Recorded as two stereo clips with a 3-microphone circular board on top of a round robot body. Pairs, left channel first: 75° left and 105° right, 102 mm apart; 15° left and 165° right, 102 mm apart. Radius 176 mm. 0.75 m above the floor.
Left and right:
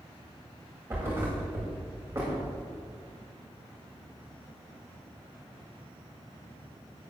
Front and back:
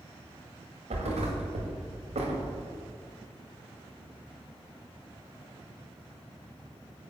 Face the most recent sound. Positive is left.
turn(degrees=-175)